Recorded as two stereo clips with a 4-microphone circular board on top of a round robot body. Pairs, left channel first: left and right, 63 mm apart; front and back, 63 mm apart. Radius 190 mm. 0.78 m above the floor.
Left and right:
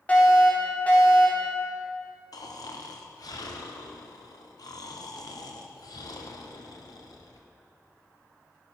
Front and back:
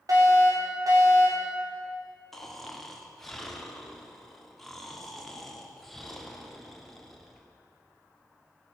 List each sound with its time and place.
0.1 s a fire alarm: 155° left, 4 m
2.3 s snoring: 85° left, 1.8 m